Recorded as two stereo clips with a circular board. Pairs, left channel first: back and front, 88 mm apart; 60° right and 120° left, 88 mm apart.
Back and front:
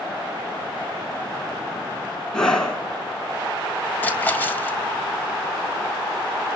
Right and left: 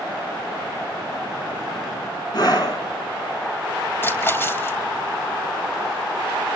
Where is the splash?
115° right, 2 m.